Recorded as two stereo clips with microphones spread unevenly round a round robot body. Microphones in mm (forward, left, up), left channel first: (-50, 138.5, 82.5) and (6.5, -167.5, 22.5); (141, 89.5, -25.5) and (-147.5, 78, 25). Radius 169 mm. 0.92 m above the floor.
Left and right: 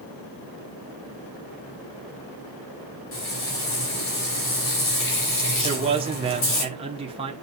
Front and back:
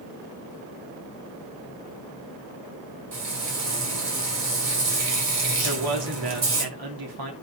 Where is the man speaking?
150° right, 2 m.